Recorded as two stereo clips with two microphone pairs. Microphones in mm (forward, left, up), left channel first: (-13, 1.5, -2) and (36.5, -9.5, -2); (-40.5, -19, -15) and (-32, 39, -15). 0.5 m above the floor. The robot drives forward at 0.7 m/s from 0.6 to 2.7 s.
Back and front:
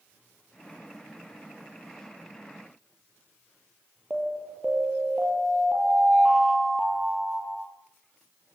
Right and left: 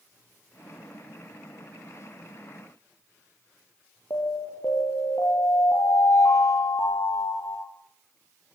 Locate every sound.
4.1 s an alarm: 85° right, 8 m